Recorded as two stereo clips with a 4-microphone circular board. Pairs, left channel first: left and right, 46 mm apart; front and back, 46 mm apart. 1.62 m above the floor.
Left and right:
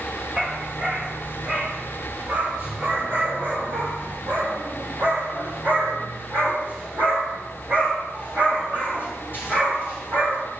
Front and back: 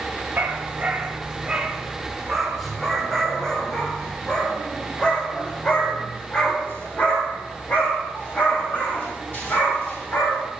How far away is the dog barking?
About 1.7 m.